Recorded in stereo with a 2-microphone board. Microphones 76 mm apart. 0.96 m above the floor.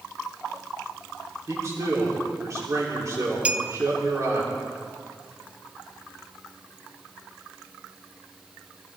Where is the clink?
15° right (ahead or behind), 0.6 m.